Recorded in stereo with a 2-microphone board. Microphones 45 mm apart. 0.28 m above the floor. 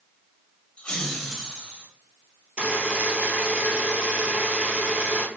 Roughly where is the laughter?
Left.